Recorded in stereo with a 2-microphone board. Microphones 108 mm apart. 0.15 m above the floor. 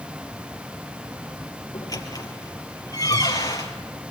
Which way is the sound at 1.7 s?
35° left (ahead or behind).